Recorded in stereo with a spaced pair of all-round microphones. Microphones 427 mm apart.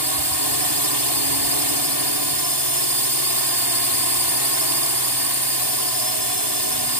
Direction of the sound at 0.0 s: 65° right (ahead or behind).